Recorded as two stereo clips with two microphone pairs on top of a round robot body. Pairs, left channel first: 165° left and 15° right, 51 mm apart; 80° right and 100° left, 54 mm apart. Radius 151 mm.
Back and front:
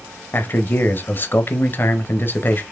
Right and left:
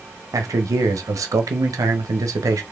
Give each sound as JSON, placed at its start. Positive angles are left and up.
{"t": 0.3, "sound": "a man speaking", "azimuth_deg": 115, "distance_m": 0.8}